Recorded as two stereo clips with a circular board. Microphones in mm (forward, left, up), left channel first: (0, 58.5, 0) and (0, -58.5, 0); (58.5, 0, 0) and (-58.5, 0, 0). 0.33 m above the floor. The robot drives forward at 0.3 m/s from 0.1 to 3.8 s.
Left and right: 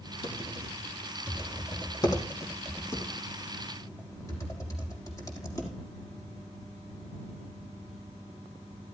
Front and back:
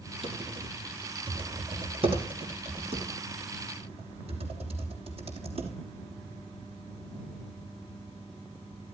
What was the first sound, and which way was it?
Typing on a keyboard, 140° left.